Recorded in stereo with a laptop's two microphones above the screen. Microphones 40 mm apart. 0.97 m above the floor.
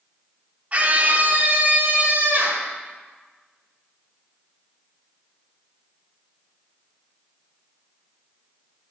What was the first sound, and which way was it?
A scream, 35° right (ahead or behind).